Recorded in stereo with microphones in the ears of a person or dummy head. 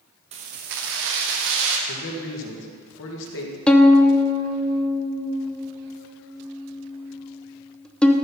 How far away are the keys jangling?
About 0.8 m.